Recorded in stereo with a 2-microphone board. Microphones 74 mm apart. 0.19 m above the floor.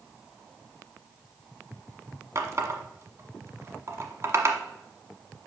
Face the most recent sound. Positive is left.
turn(degrees=-45)  # may be behind; listen again after turning